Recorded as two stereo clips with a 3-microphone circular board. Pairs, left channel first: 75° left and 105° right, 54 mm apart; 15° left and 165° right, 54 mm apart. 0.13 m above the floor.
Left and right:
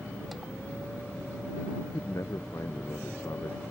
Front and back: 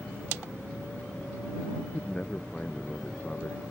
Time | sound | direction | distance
1.8 | a man speaking | 85° left | ?